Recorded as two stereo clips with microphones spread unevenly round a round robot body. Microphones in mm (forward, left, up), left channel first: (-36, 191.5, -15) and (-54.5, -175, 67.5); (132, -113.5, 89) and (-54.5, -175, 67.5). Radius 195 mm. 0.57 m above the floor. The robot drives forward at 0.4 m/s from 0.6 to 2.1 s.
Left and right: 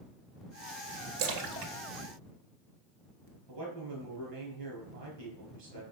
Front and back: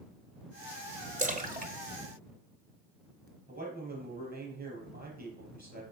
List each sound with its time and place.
1.2 s a splash: 110° right, 1.4 m; by 3.3 s 125° right, 1.6 m
3.5 s a man speaking: 130° right, 5.5 m